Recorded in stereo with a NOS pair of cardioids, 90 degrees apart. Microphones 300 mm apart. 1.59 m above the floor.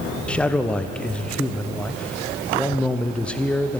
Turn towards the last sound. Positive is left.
turn(degrees=5)